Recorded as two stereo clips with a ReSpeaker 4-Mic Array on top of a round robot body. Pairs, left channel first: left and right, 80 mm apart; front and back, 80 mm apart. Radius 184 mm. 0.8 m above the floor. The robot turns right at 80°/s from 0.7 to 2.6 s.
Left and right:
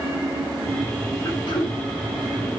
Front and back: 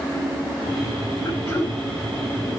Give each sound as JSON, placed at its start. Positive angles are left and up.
{"t": 1.2, "sound": "throat clearing", "azimuth_deg": 45, "distance_m": 1.8}